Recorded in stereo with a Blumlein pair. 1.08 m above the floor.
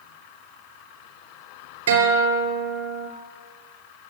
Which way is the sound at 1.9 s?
65° right.